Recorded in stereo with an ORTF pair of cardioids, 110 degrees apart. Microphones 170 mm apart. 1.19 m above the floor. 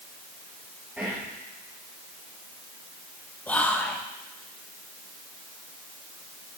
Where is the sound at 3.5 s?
10° left, 0.8 m.